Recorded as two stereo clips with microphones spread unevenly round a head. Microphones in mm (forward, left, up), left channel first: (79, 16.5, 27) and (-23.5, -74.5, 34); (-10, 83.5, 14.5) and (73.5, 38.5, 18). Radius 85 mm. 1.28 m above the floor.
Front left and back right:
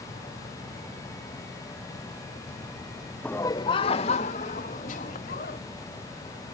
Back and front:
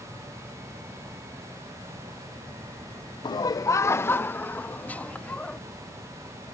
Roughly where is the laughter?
Behind left.